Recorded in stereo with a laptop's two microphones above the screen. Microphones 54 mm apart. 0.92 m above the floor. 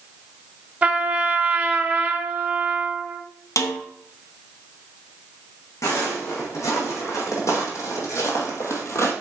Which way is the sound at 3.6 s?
70° left (ahead or behind).